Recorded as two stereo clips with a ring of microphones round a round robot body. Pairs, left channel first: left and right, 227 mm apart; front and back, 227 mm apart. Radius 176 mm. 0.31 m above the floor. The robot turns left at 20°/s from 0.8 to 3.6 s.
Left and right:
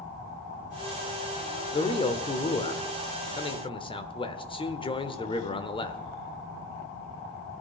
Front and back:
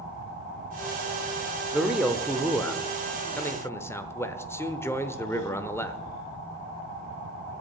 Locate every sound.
1.7 s a man speaking: 100° left, 1.0 m; by 6.0 s 65° left, 1.0 m